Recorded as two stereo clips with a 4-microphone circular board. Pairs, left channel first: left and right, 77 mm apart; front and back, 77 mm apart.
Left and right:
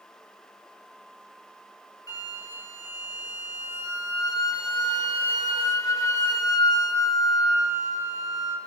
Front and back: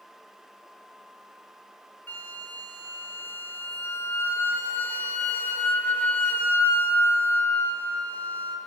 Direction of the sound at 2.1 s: 60° left.